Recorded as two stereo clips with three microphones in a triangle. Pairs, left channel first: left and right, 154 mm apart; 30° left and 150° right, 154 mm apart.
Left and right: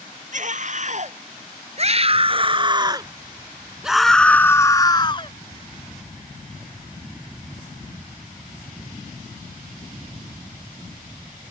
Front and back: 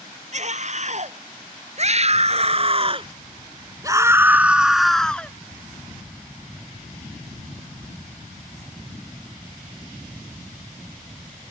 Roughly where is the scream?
Behind right.